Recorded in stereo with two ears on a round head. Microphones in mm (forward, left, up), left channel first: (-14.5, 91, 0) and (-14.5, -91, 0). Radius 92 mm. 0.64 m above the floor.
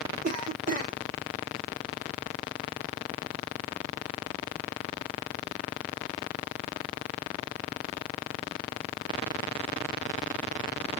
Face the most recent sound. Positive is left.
turn(degrees=-40)  # may be behind; listen again after turning